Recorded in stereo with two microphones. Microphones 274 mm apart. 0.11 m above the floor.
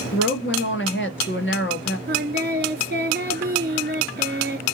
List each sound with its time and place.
0.1 s a woman speaking: 45° left (ahead or behind), 1.7 m
2.1 s singing: 40° right (ahead or behind), 1.5 m